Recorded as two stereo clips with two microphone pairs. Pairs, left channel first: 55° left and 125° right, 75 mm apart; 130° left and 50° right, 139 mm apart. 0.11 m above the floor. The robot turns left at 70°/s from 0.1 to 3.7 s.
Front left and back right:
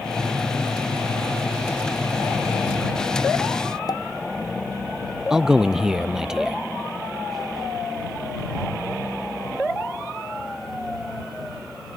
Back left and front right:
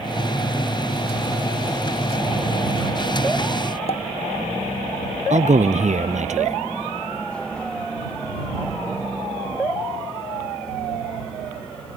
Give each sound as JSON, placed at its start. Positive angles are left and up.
{"t": 3.9, "sound": "a pop", "azimuth_deg": 85}
{"t": 5.3, "sound": "a man speaking", "azimuth_deg": -45}